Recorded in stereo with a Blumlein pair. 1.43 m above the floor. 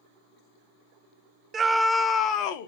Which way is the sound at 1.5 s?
20° right.